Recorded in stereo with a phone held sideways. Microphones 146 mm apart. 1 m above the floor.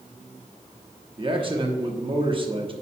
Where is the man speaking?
40° right (ahead or behind), 1.0 m.